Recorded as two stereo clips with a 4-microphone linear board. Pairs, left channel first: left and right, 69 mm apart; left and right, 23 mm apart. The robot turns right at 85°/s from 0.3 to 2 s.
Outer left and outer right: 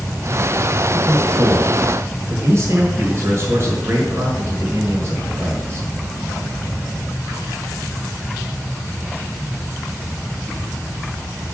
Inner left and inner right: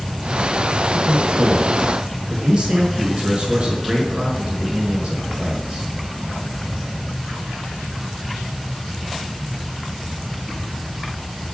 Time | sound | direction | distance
0.9 | a man speaking | 135° right | 5.5 m